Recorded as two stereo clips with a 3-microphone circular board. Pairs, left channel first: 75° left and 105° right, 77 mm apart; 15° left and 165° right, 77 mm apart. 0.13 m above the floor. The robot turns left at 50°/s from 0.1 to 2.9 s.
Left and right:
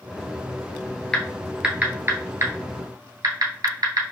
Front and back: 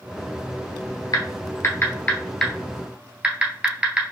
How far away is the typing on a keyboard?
About 1.2 m.